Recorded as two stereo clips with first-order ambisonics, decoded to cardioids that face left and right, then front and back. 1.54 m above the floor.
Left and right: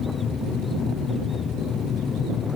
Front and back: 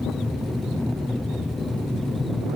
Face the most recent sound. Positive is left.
turn(degrees=70)